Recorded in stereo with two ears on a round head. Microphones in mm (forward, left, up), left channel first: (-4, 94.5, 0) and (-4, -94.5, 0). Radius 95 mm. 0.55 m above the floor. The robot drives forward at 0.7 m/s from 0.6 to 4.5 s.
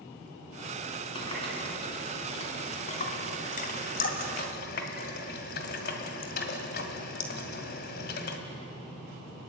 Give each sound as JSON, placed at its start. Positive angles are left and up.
{"t": 1.1, "sound": "a running tap", "side_deg": 25, "distance_m": 4.0}